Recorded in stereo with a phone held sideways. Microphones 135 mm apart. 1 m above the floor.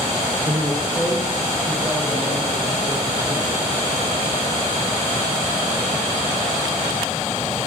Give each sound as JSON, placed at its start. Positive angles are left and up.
{"t": 0.5, "sound": "a man speaking", "side_deg": -35, "distance_m": 0.7}